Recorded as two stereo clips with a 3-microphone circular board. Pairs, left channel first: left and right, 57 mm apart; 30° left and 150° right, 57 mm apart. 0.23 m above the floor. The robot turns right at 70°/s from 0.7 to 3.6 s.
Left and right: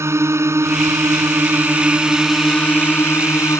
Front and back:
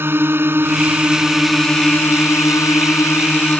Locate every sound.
0.0 s a drone: 110° right; by 3.6 s 90° left